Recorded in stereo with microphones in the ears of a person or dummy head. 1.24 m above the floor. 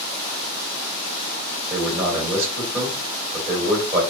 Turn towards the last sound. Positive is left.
turn(degrees=-15)  # may be behind; listen again after turning